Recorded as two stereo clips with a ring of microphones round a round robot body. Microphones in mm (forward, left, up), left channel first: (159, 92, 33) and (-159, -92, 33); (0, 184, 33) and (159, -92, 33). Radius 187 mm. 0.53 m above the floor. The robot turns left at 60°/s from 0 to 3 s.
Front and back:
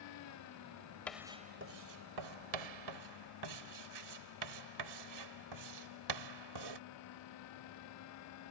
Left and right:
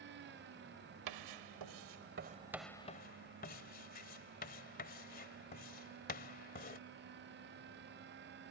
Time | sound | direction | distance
1.1 | writing | 55° right | ?